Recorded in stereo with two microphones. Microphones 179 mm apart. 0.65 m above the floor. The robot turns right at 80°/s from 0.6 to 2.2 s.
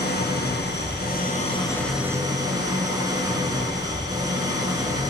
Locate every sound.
0.0 s an engine running: 75° left, 4 m; by 5.1 s 160° right, 4 m